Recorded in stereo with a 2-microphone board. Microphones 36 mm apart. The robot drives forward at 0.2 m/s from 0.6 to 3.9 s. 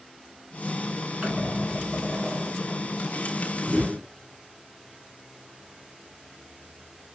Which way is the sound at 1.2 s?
40° right (ahead or behind).